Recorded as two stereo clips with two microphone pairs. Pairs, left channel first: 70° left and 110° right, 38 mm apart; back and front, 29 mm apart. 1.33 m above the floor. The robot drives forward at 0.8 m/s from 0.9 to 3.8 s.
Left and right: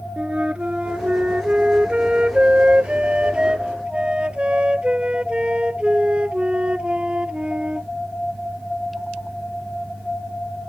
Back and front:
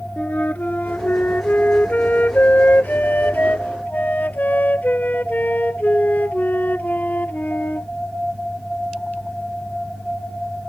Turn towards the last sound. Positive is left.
turn(degrees=-175)